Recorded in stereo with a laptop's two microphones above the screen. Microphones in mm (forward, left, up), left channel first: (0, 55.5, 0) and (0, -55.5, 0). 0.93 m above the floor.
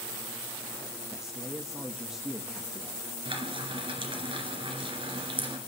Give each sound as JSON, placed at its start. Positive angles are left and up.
{"t": 1.1, "sound": "a man speaking", "side_deg": -5, "distance_m": 1.4}
{"t": 3.2, "sound": "frying", "side_deg": -50, "distance_m": 2.5}